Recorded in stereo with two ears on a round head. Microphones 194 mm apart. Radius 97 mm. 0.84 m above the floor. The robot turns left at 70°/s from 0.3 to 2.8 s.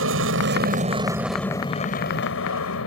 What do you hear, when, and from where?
0.0 s an aircraft: 105° right; by 2.9 s 80° left